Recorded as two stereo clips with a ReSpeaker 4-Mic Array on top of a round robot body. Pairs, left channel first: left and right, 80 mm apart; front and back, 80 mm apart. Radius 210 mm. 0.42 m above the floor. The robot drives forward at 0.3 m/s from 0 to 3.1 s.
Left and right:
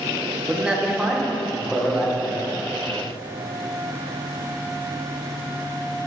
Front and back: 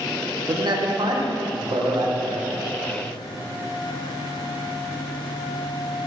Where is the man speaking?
170° right, 1.7 m.